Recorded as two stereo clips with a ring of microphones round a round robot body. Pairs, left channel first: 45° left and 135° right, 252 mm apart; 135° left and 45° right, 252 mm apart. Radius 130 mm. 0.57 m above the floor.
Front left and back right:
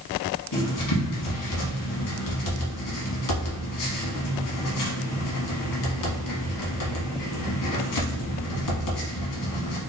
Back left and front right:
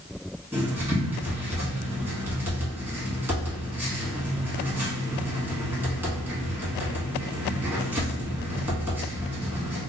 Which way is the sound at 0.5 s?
40° left.